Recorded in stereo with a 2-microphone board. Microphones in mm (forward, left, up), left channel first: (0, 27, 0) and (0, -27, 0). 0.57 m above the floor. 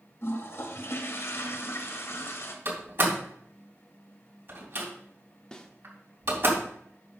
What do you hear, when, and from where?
0.2 s a toilet flushing: 55° left (ahead or behind), 1.3 m
2.6 s a door slam: 50° right (ahead or behind), 3 m
5.5 s a snare drum: 15° left (ahead or behind), 0.9 m